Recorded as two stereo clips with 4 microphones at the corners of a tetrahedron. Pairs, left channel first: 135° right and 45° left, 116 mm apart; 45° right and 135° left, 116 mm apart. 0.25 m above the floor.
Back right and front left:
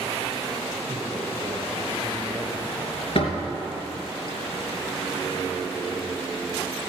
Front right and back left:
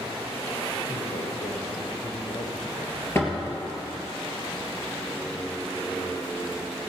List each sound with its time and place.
0.9 s a man speaking: 25° right, 4.5 m
3.1 s a door slam: 110° right, 3 m